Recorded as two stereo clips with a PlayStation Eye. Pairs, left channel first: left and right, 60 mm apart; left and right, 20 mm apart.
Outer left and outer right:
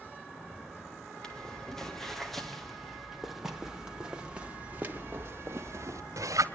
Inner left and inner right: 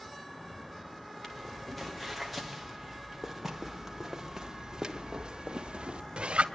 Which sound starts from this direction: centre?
Footsteps, at 1.2 s.